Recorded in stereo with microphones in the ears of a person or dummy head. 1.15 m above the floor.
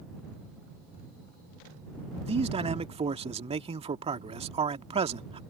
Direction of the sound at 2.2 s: 20° right (ahead or behind).